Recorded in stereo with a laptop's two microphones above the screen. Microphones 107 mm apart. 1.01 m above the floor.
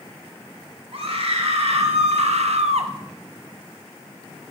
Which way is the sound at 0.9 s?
65° right (ahead or behind).